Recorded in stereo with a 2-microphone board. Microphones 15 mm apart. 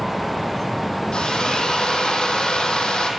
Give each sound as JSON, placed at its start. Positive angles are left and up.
{"t": 1.1, "sound": "a drill", "side_deg": 70, "distance_m": 5.0}